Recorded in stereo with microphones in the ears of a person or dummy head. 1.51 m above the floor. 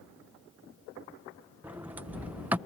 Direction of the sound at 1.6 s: 10° right (ahead or behind).